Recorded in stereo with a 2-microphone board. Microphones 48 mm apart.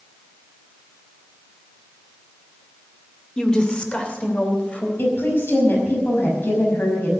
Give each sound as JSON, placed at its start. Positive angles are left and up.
{"t": 3.4, "sound": "a woman speaking", "side_deg": 20, "distance_m": 2.0}
{"t": 5.0, "sound": "a woman speaking", "side_deg": 50, "distance_m": 5.5}